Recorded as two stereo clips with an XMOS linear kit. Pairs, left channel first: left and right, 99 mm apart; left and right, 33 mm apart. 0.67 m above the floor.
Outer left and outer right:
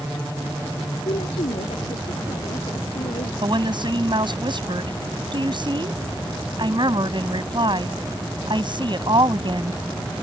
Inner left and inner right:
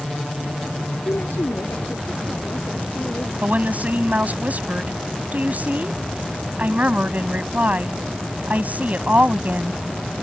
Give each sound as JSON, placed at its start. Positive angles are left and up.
{"t": 1.1, "sound": "a woman speaking", "side_deg": 85}
{"t": 3.4, "sound": "a woman speaking", "side_deg": -50}